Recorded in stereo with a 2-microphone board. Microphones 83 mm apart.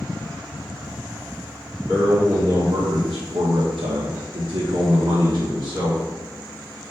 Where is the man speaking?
35° right (ahead or behind), 1.4 m; by 6.0 s 40° right (ahead or behind), 1.5 m.